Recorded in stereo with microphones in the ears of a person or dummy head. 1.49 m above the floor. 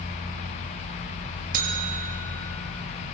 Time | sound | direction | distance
1.5 | a buzzer | 50° right (ahead or behind) | 3 m